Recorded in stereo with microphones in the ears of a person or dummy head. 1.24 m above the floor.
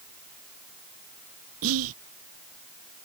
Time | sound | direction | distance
1.6 | whispering | 85° right | ?